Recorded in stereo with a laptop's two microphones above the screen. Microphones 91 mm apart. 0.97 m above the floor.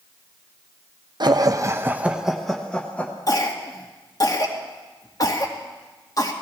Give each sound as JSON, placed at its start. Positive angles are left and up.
{"t": 1.2, "sound": "laughter", "side_deg": -50, "distance_m": 0.8}
{"t": 3.3, "sound": "a cough", "side_deg": 40, "distance_m": 2.0}